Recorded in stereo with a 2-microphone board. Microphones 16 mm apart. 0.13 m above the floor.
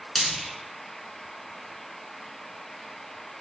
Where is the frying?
25° left (ahead or behind), 1.6 m.